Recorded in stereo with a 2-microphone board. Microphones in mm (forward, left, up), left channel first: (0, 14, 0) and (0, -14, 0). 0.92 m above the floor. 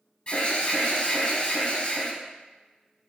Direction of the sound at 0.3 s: 35° left (ahead or behind).